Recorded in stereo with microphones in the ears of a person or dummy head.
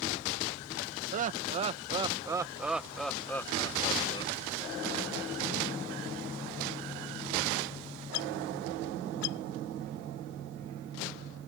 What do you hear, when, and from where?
1.1 s laughter: 35° right (ahead or behind); by 4.3 s 35° left (ahead or behind)